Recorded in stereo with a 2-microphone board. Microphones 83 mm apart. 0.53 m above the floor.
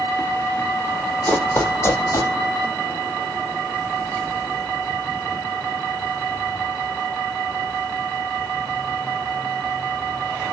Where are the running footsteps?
20° left (ahead or behind), 1.5 m; by 2.3 s 40° left (ahead or behind), 1.6 m.